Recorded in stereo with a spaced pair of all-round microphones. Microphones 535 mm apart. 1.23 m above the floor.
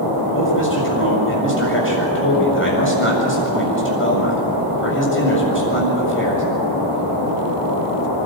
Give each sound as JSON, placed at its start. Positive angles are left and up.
{"t": 0.3, "sound": "a man speaking", "side_deg": 20, "distance_m": 7.5}